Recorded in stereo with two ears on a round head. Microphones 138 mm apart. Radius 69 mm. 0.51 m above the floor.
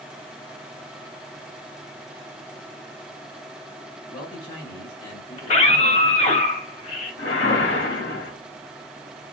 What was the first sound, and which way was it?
A man speaking, 30° left (ahead or behind).